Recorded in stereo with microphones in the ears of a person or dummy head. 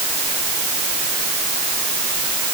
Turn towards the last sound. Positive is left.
No sound to turn to.